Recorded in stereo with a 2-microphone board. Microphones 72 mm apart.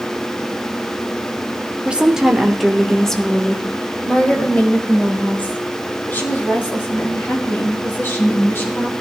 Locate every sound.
1.9 s a woman speaking: 15° right (ahead or behind), 1.1 m; by 8.9 s 35° left (ahead or behind), 4.5 m